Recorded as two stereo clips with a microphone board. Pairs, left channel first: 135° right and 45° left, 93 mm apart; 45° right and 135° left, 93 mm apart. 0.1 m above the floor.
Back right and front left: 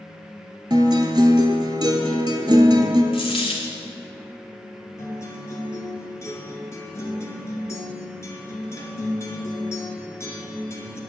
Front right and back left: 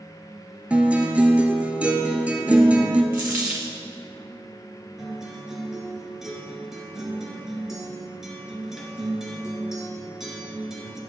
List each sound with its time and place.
0.7 s a guitar: 65° left, 0.7 m
3.1 s a dropped coin: 155° right, 1.1 m
5.0 s a guitar: 140° right, 1.3 m